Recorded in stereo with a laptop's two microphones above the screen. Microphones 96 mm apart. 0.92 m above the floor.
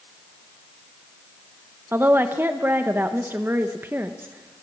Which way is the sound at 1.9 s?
20° right (ahead or behind).